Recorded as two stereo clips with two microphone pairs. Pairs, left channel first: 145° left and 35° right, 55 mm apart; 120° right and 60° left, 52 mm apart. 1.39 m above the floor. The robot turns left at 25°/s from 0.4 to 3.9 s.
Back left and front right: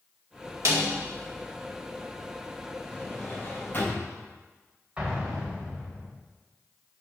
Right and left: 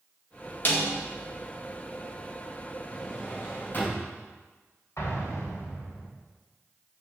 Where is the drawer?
145° right, 4 m; by 4.1 s 170° right, 4 m.